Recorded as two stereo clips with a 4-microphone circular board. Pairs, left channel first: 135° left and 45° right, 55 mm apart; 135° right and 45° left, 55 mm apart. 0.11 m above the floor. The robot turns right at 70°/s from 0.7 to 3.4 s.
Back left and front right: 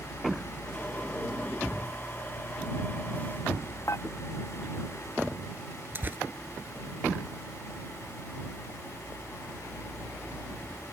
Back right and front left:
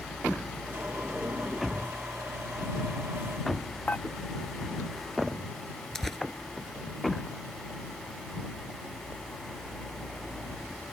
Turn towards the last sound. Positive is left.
turn(degrees=-55)